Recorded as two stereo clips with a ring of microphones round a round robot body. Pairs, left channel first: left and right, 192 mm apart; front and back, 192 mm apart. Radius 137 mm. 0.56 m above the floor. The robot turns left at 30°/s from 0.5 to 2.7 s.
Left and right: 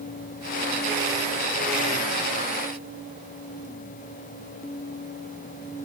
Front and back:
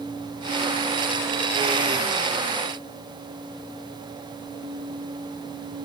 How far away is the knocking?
I don't hear knocking.